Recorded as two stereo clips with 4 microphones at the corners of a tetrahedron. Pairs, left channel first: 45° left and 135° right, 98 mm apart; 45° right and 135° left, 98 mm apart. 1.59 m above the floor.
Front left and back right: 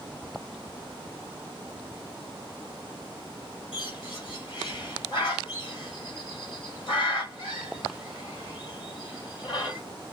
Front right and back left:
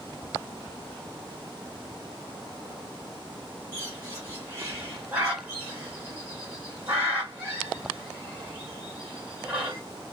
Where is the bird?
65° left, 2 m.